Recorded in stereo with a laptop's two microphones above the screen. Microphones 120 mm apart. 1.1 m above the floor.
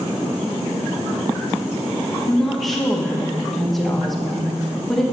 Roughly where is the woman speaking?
Centre.